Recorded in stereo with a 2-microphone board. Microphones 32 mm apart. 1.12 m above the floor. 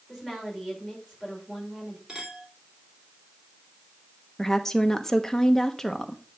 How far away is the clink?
About 2.5 m.